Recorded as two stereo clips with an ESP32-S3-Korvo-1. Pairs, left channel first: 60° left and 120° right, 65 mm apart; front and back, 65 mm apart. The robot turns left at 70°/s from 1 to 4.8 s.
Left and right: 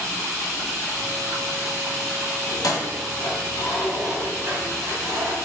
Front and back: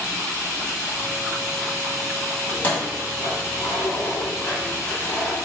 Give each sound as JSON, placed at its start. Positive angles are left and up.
{"t": 2.5, "sound": "keys jangling", "azimuth_deg": 75, "distance_m": 2.0}